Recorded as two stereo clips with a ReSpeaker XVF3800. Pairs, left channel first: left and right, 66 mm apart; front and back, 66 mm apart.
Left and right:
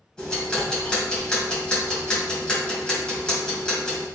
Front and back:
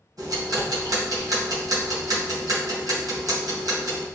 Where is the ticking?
165° left, 2.5 m.